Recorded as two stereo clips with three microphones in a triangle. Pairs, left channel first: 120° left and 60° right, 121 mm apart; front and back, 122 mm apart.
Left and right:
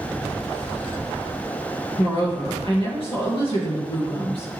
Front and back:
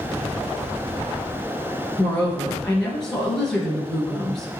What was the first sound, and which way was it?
A woman speaking, 85° left.